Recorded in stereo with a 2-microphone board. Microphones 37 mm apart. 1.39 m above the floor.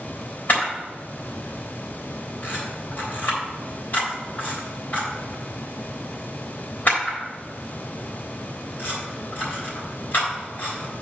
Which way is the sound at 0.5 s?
55° left (ahead or behind).